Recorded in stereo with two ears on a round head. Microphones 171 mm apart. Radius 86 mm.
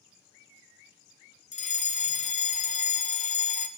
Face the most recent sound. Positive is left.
turn(degrees=40)  # may be behind; listen again after turning